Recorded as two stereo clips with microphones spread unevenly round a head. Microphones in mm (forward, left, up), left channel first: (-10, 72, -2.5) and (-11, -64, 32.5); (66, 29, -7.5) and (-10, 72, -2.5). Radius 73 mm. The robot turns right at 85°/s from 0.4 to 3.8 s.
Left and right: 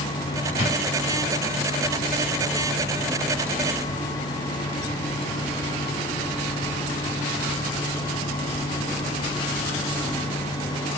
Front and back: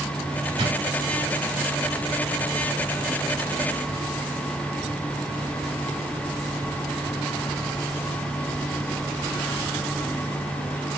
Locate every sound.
0.6 s a drawer: 165° right, 3.5 m; by 0.8 s 150° right, 3.5 m